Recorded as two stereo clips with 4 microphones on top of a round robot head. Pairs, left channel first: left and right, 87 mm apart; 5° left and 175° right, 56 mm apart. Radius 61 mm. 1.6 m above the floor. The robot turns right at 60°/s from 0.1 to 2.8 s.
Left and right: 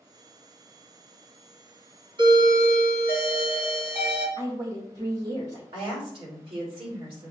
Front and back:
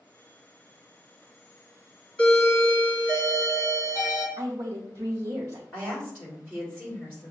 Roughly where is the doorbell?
Right.